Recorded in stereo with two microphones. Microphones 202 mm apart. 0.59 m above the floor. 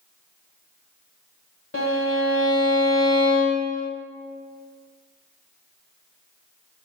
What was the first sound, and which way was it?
A violin, 85° left.